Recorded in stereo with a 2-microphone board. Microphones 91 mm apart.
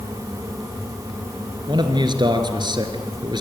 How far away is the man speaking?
About 3 m.